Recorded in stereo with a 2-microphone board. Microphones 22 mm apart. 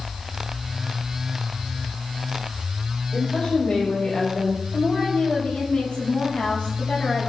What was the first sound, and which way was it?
A woman speaking, 55° left (ahead or behind).